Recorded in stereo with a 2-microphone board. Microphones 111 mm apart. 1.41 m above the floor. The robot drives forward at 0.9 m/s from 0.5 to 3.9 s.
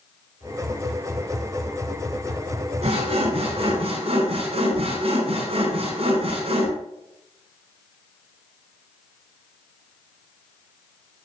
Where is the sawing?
70° right (ahead or behind), 6.5 m; by 6.7 s 65° right (ahead or behind), 6.5 m.